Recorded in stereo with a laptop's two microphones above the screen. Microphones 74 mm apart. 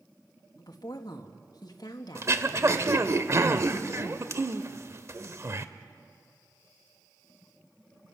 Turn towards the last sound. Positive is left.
turn(degrees=-40)  # may be behind; listen again after turning